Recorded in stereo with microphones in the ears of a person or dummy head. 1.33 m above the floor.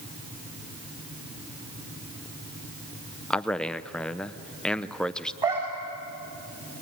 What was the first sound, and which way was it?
A man speaking, 5° left (ahead or behind).